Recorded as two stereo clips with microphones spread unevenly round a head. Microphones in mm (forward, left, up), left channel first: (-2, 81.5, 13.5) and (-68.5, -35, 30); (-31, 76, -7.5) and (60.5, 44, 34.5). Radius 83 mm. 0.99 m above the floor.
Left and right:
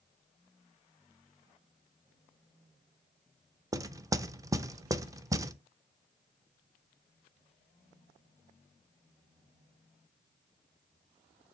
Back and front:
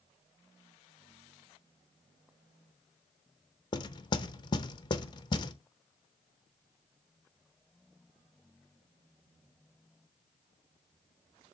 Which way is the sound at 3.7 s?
170° left.